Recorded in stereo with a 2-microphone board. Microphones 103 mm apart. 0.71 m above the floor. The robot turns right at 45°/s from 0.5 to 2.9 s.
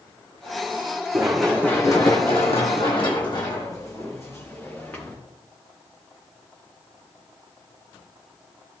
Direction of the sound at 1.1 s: 15° right (ahead or behind).